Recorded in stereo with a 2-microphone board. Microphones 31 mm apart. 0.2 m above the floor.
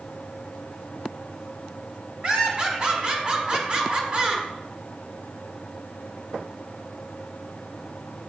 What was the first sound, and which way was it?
Laughter, 40° right (ahead or behind).